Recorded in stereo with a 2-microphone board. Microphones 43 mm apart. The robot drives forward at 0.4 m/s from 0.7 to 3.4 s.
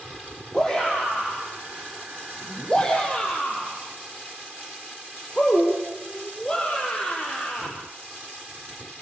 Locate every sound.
0.5 s a shout: 15° left (ahead or behind), 4.5 m; by 7.7 s 20° left (ahead or behind), 3.5 m